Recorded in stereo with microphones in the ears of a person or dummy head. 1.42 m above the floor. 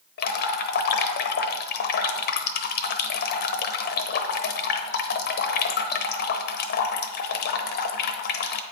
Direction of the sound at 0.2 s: 60° left (ahead or behind).